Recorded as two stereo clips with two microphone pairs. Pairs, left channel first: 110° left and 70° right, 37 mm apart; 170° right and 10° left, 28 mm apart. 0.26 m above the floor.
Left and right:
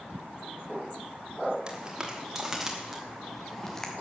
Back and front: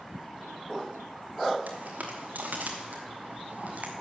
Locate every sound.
1.7 s footsteps: straight ahead, 4.5 m; by 3.9 s 35° left, 2.5 m